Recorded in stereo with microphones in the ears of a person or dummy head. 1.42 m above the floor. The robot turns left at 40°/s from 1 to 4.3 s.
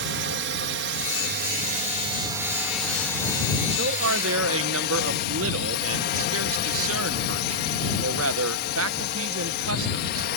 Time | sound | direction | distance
0.0 | a drone | 105° right | ?
3.7 | a man speaking | 60° right (ahead or behind) | ?